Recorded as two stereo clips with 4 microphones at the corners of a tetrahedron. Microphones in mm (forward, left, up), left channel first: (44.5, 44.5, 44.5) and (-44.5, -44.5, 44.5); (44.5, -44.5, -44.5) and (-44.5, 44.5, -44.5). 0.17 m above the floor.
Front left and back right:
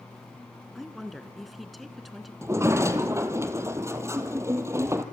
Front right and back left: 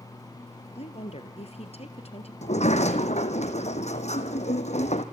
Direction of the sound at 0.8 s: 45° right.